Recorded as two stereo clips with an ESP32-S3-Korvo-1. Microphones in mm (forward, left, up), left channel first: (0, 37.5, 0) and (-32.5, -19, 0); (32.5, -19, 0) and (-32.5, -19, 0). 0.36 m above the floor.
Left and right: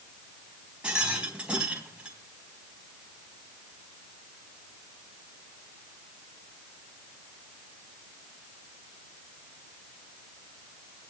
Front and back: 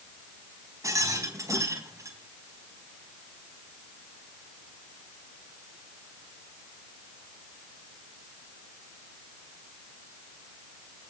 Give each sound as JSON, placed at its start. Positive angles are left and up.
{"t": 0.8, "sound": "a rattle", "azimuth_deg": 170, "distance_m": 3.5}